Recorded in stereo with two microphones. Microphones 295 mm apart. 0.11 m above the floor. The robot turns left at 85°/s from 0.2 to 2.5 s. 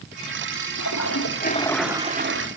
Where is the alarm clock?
I don't hear an alarm clock.